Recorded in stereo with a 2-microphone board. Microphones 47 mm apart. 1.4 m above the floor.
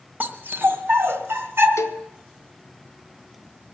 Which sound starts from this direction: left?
A cowbell, at 1.8 s.